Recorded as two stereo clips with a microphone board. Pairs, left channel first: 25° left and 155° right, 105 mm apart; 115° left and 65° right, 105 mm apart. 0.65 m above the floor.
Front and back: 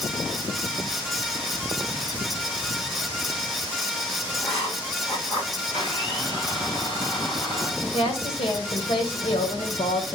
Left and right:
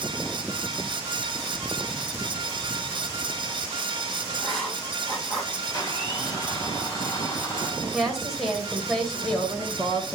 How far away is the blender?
About 2 m.